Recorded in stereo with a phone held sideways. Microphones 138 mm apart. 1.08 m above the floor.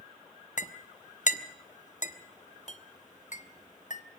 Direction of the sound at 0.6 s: 60° left (ahead or behind).